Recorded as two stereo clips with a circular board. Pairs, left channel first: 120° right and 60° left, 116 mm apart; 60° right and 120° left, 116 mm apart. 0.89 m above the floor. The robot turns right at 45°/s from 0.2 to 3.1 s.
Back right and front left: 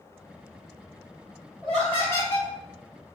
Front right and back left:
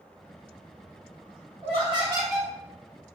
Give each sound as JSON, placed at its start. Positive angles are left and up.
{"t": 1.6, "sound": "laughter", "azimuth_deg": 150, "distance_m": 2.0}